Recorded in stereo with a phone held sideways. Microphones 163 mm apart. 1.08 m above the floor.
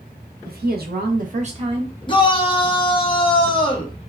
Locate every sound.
0.5 s a woman speaking: 70° right (ahead or behind), 0.9 m; by 1.9 s 25° right (ahead or behind), 0.8 m
2.1 s a shout: 30° left (ahead or behind), 0.9 m